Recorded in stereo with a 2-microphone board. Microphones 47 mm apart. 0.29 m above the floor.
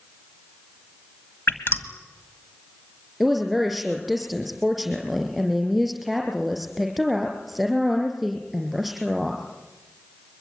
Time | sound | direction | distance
1.5 | dripping | 50° left (ahead or behind) | 1.8 m
3.2 | a woman speaking | centre (ahead or behind) | 5 m